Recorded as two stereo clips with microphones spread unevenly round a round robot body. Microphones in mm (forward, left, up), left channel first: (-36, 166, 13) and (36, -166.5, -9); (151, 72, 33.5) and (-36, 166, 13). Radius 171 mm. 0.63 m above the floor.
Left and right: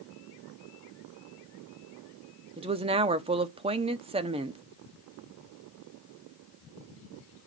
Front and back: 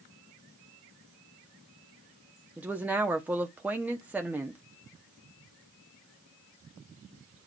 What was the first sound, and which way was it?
A woman speaking, 135° right.